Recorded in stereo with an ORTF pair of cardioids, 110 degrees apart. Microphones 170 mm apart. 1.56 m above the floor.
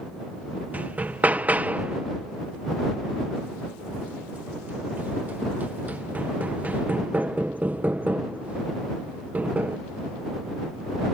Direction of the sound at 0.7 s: 10° right.